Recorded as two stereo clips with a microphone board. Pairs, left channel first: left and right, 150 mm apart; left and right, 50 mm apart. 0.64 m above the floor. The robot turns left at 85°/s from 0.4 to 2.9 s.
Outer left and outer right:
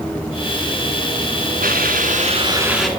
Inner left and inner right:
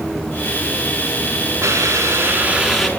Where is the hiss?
75° right, 4.5 m; by 2.9 s 175° left, 4.5 m.